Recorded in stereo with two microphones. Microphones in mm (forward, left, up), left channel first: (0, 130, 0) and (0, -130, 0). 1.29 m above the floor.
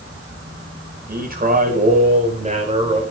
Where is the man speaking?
35° right (ahead or behind), 5 m; by 3.0 s 20° right (ahead or behind), 4.5 m.